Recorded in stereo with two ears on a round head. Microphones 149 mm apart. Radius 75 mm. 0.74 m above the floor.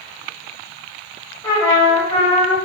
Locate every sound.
1.4 s a trumpet: 20° left (ahead or behind), 2.5 m